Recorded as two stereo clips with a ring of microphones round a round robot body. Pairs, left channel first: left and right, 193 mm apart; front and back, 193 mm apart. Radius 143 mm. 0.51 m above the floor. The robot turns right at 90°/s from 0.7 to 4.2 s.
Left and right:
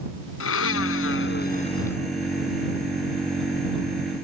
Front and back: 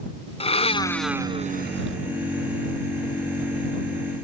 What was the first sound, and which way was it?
A blender, 60° left.